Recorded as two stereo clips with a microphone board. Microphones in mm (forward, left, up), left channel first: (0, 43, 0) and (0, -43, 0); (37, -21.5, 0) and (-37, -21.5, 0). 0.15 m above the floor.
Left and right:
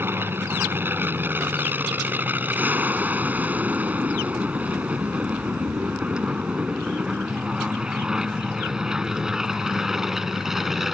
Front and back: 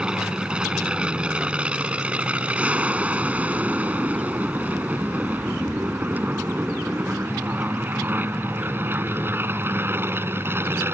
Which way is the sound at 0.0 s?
115° right.